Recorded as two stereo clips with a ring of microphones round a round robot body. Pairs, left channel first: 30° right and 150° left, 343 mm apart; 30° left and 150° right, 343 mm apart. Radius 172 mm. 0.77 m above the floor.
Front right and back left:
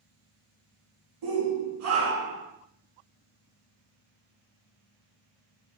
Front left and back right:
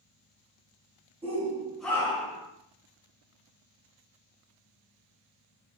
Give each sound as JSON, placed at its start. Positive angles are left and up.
{"t": 1.2, "sound": "a shout", "azimuth_deg": 140, "distance_m": 0.9}